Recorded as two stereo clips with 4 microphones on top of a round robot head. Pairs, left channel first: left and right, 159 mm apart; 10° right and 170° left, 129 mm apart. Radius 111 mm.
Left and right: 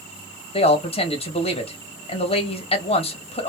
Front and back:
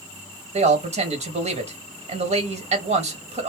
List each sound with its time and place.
0.5 s a man speaking: 140° left, 1.7 m